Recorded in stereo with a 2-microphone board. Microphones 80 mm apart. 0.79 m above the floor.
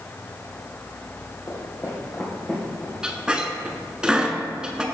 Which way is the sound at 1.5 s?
40° left (ahead or behind).